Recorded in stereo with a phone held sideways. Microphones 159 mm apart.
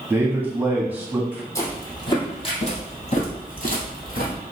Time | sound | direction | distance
0.1 | a man speaking | 10° right (ahead or behind) | 1.4 m
1.6 | footsteps | 20° left (ahead or behind) | 1.8 m